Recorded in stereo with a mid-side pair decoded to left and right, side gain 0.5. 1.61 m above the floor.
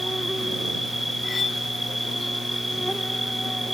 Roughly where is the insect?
Ahead.